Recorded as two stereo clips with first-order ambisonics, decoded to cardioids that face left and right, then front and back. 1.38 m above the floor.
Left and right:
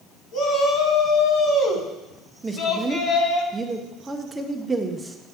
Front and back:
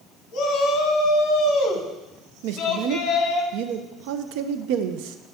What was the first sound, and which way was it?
A shout, 45° left.